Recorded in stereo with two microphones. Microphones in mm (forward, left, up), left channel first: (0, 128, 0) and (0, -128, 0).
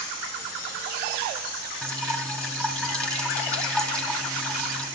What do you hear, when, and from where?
1.8 s dripping: 5° left (ahead or behind), 2.5 m